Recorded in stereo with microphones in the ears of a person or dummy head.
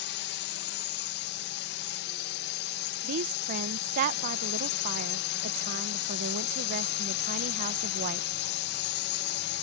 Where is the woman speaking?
50° right (ahead or behind).